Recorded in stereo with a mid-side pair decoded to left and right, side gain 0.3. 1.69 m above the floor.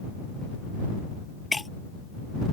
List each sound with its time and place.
1.5 s breaking glass: 25° left